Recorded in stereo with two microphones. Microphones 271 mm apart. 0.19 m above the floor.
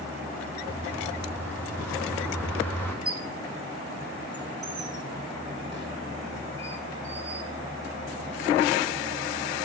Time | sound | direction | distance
0.7 | a bird | 10° left (ahead or behind) | 1.4 m
3.0 | a squeak | 40° left (ahead or behind) | 0.8 m